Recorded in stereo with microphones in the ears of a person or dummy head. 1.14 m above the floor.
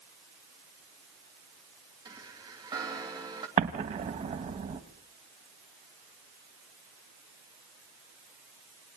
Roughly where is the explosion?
Right.